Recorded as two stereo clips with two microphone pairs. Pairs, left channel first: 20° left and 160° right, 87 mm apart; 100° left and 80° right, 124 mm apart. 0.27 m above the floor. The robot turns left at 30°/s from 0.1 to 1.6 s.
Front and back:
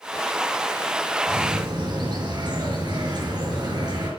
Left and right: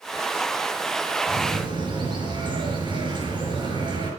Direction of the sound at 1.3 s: 120° right.